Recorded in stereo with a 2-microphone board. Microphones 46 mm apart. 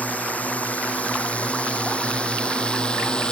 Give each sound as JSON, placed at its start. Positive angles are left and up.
{"t": 0.0, "sound": "a drone", "side_deg": 35}